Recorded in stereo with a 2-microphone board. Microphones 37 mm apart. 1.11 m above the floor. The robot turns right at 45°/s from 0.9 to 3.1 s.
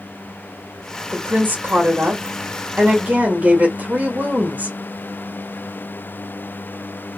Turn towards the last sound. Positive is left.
turn(degrees=-45)